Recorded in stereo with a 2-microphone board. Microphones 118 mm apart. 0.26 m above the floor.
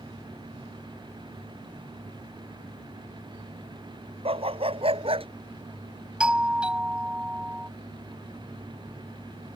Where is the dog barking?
55° right (ahead or behind).